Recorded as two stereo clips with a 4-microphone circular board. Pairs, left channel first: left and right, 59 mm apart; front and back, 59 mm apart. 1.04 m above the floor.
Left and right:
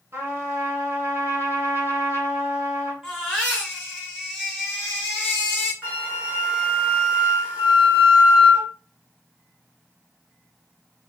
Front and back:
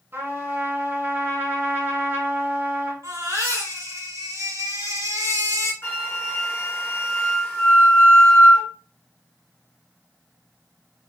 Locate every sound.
0.1 s a trumpet: 135° right, 2 m
3.0 s a baby crying: 170° right, 2.5 m
5.8 s a flute: 35° right, 1.4 m